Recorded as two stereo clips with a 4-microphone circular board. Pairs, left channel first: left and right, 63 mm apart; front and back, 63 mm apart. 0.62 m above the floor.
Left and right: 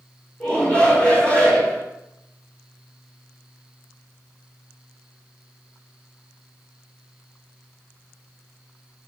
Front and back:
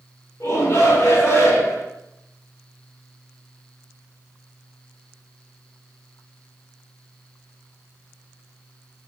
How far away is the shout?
About 2.5 m.